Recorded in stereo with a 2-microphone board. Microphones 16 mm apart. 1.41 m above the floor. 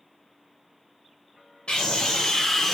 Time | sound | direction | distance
1.7 | a scream | 65° left (ahead or behind) | 0.7 m